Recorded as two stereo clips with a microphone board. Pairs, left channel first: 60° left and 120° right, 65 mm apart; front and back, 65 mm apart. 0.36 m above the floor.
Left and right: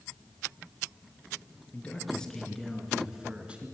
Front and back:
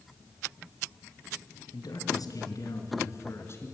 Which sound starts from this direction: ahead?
A man speaking, at 1.7 s.